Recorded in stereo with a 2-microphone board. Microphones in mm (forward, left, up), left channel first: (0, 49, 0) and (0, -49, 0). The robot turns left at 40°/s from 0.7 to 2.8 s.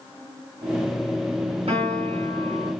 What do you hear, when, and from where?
1.7 s a piano: 95° right, 4.5 m; by 2.7 s 135° right, 4.5 m